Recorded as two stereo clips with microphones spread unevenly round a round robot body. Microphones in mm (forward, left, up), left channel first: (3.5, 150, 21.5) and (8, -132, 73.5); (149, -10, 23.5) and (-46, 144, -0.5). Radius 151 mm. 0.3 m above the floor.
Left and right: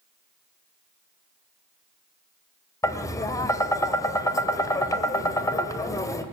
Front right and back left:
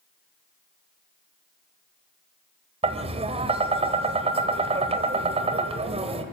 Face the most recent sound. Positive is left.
turn(degrees=130)